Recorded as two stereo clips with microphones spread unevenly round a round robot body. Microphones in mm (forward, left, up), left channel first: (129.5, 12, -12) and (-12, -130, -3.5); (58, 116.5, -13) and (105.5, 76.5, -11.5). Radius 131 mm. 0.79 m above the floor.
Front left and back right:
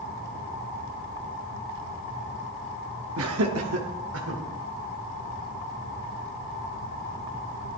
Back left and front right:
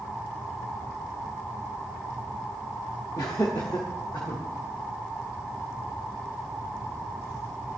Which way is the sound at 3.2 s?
165° right.